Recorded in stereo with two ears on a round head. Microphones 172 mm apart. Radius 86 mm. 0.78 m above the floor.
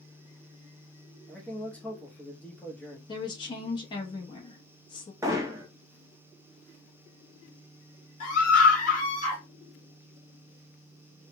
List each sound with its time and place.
1.3 s a man speaking: 10° left (ahead or behind), 0.8 m
3.1 s a woman speaking: 25° left (ahead or behind), 0.8 m
5.2 s hammering: 15° right (ahead or behind), 0.6 m
8.2 s a scream: 40° left (ahead or behind), 1.8 m